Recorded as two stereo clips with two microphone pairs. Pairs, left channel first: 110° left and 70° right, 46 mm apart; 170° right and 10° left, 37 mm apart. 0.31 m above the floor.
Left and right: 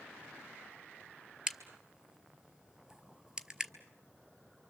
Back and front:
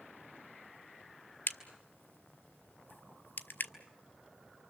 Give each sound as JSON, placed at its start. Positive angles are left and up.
{"t": 1.5, "sound": "a crack", "azimuth_deg": -145, "distance_m": 1.1}